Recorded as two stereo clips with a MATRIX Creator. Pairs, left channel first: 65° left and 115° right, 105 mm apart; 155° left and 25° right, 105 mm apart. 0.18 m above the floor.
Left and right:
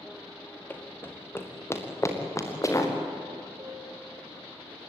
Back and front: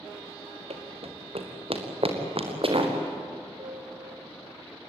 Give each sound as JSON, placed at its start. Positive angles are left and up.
{"t": 0.7, "sound": "running footsteps", "azimuth_deg": -5, "distance_m": 2.5}
{"t": 3.6, "sound": "a piano", "azimuth_deg": -55, "distance_m": 4.0}